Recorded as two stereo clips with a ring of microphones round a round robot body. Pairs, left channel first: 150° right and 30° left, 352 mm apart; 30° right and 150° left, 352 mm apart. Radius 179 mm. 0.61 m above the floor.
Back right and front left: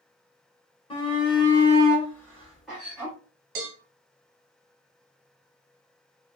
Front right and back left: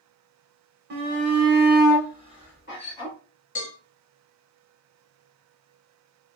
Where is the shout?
150° left, 1.1 m; by 3.1 s 55° right, 1.3 m.